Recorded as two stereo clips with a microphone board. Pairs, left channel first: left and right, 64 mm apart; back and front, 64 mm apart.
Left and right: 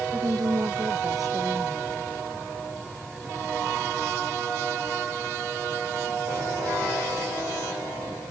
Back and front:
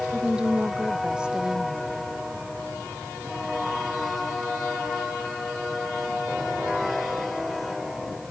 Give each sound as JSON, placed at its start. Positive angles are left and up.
{"t": 0.1, "sound": "a woman speaking", "azimuth_deg": -75}